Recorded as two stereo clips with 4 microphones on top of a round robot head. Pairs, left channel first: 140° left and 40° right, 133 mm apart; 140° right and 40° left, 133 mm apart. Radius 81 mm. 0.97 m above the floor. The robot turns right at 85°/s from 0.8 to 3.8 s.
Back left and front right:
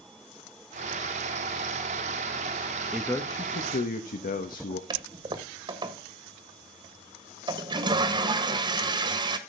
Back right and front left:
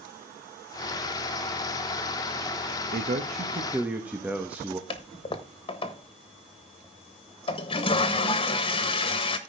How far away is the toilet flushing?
About 1.4 m.